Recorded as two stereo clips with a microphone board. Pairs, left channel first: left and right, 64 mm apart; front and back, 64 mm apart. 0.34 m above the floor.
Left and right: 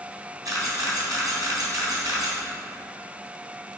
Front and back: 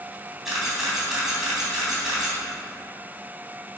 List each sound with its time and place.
0.5 s a camera shutter: 95° right, 3 m